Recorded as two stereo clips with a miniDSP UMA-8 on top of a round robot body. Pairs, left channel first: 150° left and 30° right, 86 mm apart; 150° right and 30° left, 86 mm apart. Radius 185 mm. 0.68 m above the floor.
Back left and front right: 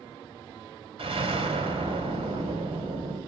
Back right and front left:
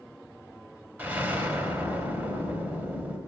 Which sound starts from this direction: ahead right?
An explosion, at 1.0 s.